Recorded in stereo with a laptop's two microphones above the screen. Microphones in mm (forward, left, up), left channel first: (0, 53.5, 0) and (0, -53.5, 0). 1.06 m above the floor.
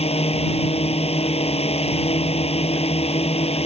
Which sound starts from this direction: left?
A drone, at 0.0 s.